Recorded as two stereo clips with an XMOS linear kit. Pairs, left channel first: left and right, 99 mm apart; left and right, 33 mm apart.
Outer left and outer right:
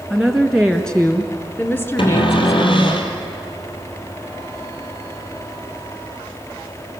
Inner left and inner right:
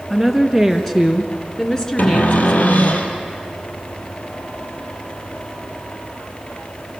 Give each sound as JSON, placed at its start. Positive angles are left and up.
{"t": 0.1, "sound": "a woman speaking", "side_deg": 0, "distance_m": 2.0}
{"t": 2.0, "sound": "a cupboard door", "side_deg": 55, "distance_m": 3.0}